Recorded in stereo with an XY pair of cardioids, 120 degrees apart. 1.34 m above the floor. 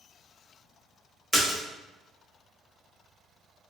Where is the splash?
15° left, 0.9 m.